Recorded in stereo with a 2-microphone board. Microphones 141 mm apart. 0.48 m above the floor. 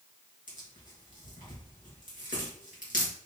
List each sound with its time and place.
0.5 s tearing paper: 70° left (ahead or behind), 3.5 m